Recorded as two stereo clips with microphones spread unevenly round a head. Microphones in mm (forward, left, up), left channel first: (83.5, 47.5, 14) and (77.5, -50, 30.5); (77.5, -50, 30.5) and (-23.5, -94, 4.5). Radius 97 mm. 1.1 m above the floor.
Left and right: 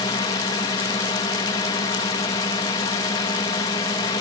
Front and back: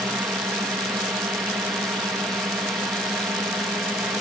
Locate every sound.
0.0 s a drone: 125° left